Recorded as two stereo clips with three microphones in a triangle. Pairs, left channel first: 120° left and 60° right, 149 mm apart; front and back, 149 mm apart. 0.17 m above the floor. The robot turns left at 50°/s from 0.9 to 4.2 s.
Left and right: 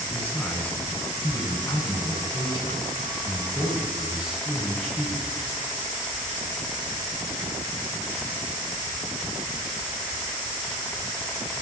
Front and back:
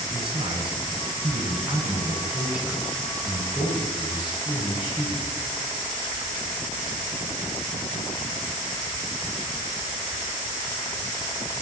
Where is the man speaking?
170° right, 1.2 m; by 5.4 s 25° left, 1.2 m.